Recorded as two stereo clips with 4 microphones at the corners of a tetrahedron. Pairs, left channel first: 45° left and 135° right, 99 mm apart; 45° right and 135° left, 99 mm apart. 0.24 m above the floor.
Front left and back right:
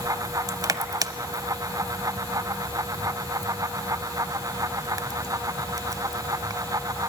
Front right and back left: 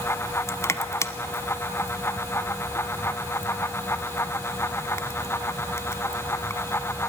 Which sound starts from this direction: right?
Crushing, at 0.5 s.